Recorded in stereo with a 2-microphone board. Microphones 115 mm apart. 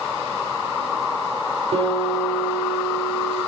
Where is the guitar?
60° right (ahead or behind), 3.5 m.